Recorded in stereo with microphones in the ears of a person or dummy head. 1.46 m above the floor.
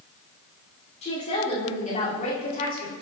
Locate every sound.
1.0 s a woman speaking: 35° left (ahead or behind), 4.5 m; by 2.9 s 45° left (ahead or behind), 3.5 m